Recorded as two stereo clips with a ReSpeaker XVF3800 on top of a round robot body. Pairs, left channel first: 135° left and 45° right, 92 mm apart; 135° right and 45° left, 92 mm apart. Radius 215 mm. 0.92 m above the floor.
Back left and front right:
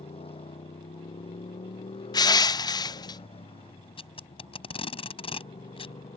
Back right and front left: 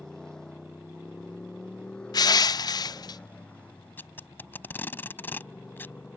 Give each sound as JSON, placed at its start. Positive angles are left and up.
{"t": 0.0, "sound": "a motorcycle", "azimuth_deg": 140}
{"t": 2.1, "sound": "crushing", "azimuth_deg": 180}
{"t": 4.0, "sound": "tape being pulled", "azimuth_deg": 155}